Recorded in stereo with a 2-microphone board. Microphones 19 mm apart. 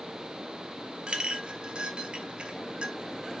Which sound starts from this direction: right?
A clink, at 1.1 s.